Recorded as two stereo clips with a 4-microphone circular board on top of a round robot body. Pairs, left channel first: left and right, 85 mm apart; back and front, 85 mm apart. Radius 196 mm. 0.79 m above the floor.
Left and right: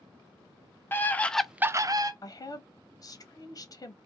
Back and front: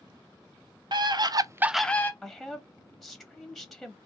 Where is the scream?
25° left, 0.8 m; by 2.1 s 120° right, 0.6 m.